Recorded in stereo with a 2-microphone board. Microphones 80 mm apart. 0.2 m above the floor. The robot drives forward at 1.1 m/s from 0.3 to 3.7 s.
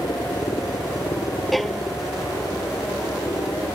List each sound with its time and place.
0.0 s a helicopter: 60° left (ahead or behind)
1.5 s a violin: centre (ahead or behind)